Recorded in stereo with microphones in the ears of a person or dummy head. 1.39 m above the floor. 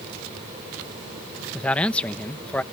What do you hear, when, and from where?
1.5 s a man speaking: 5° left (ahead or behind)